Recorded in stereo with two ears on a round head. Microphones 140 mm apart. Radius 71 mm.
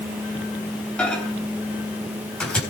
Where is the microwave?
5° left (ahead or behind), 4 m.